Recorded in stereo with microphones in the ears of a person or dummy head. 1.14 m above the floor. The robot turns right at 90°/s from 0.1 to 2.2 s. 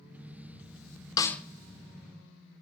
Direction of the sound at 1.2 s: 20° left (ahead or behind).